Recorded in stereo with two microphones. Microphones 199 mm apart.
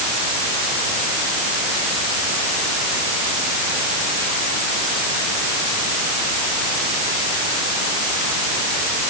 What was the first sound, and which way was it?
Only background noise.